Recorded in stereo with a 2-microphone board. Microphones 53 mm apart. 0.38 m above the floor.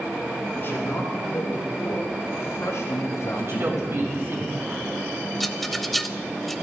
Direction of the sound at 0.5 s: 45° left (ahead or behind).